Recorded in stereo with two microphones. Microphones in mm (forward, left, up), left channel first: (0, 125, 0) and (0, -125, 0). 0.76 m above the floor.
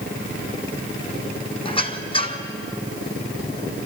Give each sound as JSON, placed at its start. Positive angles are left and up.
{"t": 1.6, "sound": "a squeak", "side_deg": 20, "distance_m": 1.4}